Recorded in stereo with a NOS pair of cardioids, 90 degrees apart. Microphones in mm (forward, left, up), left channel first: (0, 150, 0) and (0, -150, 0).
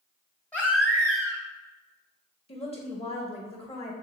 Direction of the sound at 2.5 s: 20° left.